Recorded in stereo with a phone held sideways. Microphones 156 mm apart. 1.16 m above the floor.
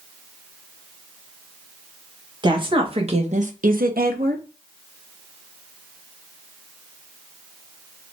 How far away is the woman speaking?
About 1.3 m.